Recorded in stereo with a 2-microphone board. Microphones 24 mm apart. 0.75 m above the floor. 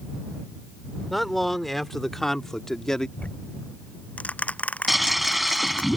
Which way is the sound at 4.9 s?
5° right (ahead or behind).